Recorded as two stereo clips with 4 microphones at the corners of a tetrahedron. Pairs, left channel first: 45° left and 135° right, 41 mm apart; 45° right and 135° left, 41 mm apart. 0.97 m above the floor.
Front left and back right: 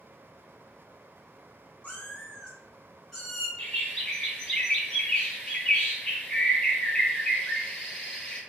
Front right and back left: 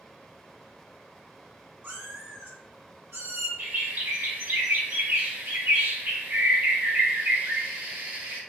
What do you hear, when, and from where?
1.8 s a cat meowing: 110° left, 2.5 m; by 3.5 s 130° left, 2 m
3.6 s a bird: 115° left, 2.5 m